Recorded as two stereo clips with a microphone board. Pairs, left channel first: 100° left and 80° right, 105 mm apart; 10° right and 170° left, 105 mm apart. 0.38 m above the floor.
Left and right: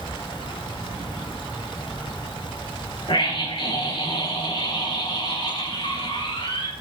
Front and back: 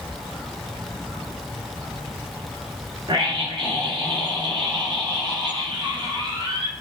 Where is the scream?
135° left, 5.5 m.